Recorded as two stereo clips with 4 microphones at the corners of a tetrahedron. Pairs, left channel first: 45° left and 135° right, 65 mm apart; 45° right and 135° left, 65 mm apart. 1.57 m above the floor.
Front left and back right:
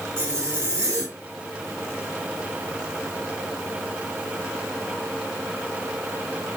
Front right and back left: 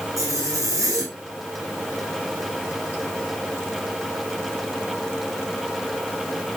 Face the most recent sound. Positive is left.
turn(degrees=170)